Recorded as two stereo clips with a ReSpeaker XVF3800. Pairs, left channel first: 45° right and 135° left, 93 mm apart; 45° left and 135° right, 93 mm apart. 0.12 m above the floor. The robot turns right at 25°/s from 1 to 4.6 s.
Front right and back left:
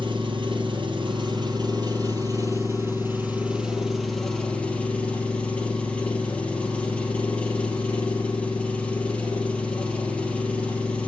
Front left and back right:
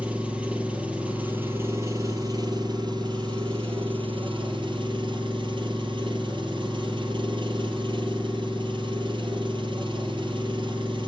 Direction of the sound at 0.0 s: 150° left.